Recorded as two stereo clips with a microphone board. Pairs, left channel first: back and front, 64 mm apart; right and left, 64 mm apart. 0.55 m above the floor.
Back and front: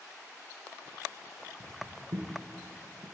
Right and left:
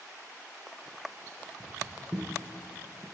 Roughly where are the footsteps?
Ahead.